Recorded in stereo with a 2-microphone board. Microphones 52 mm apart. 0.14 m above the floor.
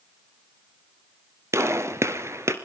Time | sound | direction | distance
1.5 | a gunshot | 55° right (ahead or behind) | 1.9 m